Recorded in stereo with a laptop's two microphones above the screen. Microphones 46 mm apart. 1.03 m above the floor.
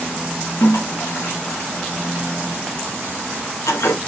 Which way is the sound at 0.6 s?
85° left.